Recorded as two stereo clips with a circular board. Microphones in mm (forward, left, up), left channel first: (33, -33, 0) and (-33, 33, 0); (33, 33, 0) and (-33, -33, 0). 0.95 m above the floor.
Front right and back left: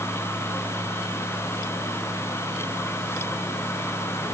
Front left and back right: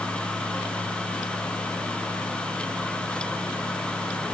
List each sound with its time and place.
Only background noise.